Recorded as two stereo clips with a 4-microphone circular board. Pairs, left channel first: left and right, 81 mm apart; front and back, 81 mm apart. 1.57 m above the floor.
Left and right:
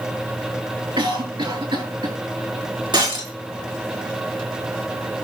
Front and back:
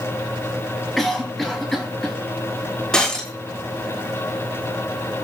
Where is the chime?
No chime in this recording.